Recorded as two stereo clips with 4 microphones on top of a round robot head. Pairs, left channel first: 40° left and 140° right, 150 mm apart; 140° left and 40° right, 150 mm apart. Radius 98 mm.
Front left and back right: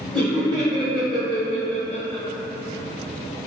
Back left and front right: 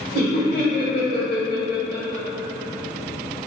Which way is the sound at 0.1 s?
160° left.